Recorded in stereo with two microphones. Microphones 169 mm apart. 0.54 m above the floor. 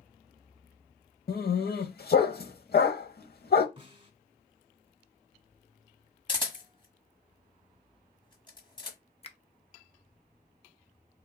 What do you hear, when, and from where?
1.3 s a dog barking: 70° left (ahead or behind), 0.8 m
3.8 s a snare drum: 30° right (ahead or behind), 1.0 m
6.3 s a camera shutter: 30° left (ahead or behind), 1.4 m
9.2 s a finger snap: 35° left (ahead or behind), 0.6 m